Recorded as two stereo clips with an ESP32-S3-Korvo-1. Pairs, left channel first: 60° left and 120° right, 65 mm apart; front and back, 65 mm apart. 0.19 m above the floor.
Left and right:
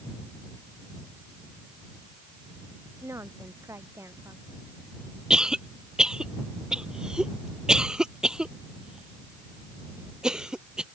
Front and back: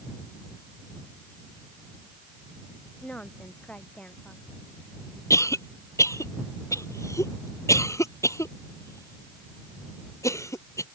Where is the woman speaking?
75° right.